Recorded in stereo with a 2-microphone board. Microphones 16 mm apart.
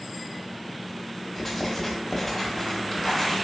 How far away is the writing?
About 0.9 m.